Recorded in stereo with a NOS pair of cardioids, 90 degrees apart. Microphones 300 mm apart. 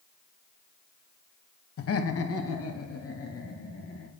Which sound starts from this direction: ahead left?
Laughter, at 1.8 s.